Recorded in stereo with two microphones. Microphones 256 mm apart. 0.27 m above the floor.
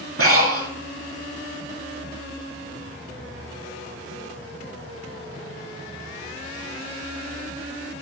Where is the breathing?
65° right (ahead or behind), 0.6 m.